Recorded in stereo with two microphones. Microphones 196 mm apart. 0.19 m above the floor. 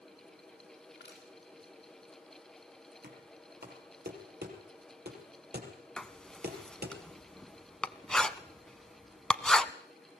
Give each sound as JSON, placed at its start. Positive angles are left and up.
{"t": 0.9, "sound": "crushing", "side_deg": 65, "distance_m": 7.5}
{"t": 3.0, "sound": "knocking", "side_deg": -60, "distance_m": 4.5}
{"t": 6.0, "sound": "writing", "side_deg": 5, "distance_m": 0.7}